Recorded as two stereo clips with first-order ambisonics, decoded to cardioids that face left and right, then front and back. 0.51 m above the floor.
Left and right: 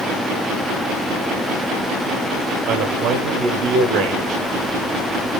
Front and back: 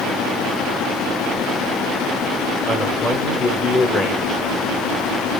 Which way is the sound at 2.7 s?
85° right.